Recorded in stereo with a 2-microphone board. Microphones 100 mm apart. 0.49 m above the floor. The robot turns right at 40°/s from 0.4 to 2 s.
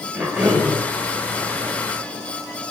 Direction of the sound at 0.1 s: 10° right (ahead or behind).